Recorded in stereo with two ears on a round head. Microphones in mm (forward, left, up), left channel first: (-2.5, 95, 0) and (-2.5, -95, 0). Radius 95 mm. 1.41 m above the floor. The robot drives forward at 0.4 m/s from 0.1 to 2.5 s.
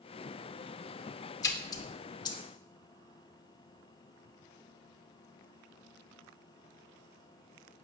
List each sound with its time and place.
1.4 s a splash: 15° left (ahead or behind), 2 m; by 2.4 s 20° left (ahead or behind), 1.7 m